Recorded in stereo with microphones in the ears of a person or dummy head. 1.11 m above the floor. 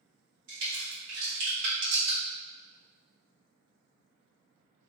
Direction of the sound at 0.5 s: 65° right (ahead or behind).